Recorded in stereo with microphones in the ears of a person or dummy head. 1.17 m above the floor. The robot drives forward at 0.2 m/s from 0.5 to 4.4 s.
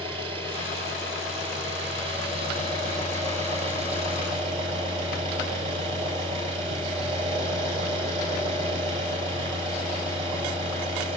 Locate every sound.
0.0 s an engine running: 30° right (ahead or behind), 6 m; by 11.2 s 35° right (ahead or behind), 5.5 m